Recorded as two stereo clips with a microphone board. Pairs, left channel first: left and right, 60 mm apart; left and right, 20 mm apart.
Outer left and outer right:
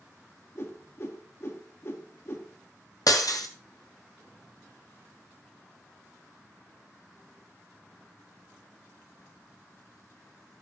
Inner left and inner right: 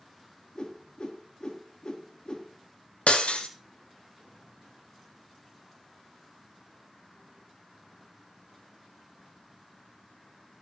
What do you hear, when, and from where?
0.6 s a whoosh: 50° left (ahead or behind), 2 m
3.1 s breaking glass: 90° left, 1.9 m